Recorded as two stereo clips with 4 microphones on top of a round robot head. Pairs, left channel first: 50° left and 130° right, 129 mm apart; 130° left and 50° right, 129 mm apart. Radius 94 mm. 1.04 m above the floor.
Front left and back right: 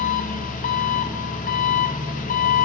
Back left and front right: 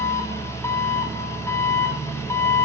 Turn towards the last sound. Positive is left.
turn(degrees=60)